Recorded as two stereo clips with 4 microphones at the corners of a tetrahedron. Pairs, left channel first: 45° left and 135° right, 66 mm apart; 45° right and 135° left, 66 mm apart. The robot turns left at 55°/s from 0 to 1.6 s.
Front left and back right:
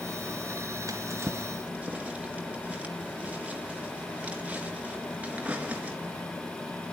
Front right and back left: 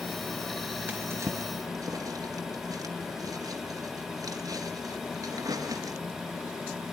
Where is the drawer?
165° right, 3 m; by 6.0 s 155° left, 3 m.